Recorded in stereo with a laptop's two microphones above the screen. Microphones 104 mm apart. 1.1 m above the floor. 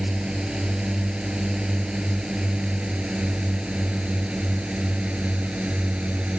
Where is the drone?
5° right (ahead or behind); by 6.4 s 10° right (ahead or behind).